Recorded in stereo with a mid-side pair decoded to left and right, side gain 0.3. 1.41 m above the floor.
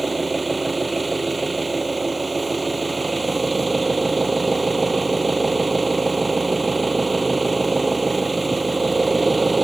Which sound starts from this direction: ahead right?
An engine running, at 0.0 s.